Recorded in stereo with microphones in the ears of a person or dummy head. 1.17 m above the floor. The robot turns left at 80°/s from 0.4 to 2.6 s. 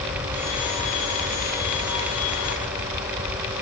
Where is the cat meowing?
I don't hear a cat meowing.